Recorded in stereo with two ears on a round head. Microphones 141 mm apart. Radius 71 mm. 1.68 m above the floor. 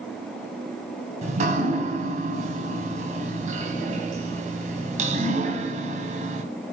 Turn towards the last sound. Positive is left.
turn(degrees=-50)  # may be behind; listen again after turning